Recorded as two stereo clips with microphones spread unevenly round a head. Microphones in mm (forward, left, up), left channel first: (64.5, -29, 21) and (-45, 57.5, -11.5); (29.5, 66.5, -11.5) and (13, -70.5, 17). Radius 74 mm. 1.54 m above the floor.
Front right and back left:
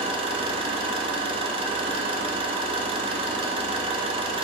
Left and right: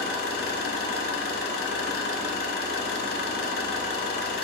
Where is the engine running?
85° left, 1.4 m.